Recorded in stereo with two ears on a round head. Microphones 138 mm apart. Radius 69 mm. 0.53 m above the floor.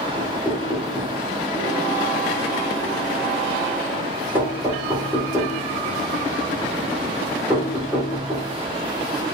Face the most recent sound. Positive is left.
turn(degrees=-10)  # may be behind; listen again after turning